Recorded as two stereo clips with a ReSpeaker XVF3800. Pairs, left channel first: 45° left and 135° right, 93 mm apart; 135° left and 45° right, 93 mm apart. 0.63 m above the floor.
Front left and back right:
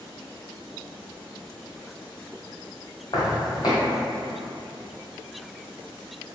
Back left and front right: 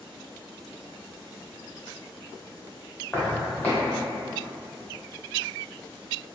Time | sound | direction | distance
3.1 | footsteps | 65° left | 1.0 m